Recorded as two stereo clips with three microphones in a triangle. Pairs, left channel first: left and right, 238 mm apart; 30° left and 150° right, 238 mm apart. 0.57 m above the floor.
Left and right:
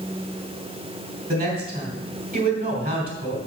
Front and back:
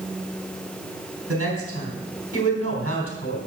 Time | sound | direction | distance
1.3 | a woman speaking | 140° right | 3 m